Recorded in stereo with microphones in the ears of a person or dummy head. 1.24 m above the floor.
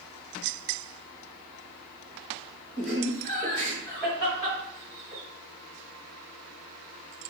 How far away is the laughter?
About 1.9 m.